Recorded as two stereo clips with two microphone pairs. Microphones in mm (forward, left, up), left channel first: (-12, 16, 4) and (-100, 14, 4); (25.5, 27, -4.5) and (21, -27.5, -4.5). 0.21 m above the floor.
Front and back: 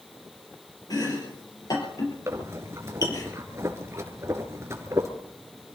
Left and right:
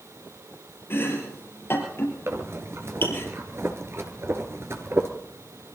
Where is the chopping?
45° left, 5.5 m.